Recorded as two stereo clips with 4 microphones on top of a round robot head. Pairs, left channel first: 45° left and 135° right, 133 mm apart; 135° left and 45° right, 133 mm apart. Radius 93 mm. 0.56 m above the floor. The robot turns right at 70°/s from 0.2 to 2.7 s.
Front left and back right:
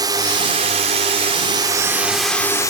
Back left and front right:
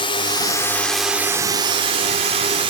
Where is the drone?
170° left; by 2.7 s 15° right.